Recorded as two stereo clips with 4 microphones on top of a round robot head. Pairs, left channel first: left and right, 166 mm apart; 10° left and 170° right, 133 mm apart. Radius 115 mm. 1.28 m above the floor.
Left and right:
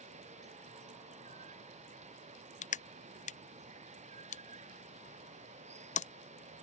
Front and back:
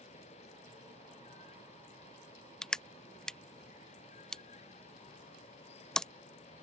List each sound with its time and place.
0.0 s running water: 40° right
2.6 s crushing: 95° left